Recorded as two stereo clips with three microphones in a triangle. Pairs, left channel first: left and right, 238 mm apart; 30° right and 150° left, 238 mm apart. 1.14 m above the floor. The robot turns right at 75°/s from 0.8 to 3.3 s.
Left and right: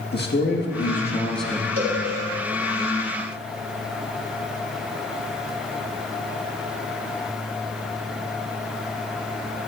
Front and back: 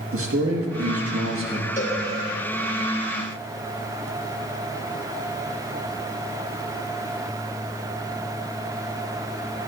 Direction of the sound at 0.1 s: 130° left.